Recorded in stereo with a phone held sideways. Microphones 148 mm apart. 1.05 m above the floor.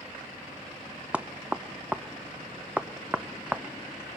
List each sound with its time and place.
1.1 s knocking: 10° right (ahead or behind), 0.6 m